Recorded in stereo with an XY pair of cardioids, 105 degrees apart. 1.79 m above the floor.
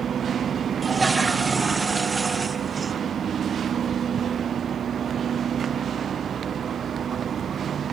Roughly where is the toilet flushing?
Ahead right.